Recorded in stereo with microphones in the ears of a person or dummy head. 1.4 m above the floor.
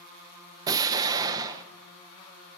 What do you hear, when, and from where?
0.7 s an explosion: 20° right (ahead or behind), 0.9 m